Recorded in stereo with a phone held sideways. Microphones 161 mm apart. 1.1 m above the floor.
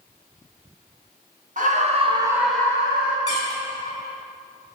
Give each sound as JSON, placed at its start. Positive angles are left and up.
{"t": 1.6, "sound": "a scream", "side_deg": -55, "distance_m": 1.1}
{"t": 3.3, "sound": "a squeak", "side_deg": -25, "distance_m": 1.6}